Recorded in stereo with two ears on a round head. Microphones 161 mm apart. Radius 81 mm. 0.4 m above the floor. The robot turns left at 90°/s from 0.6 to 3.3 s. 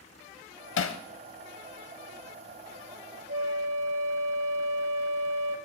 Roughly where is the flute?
Right.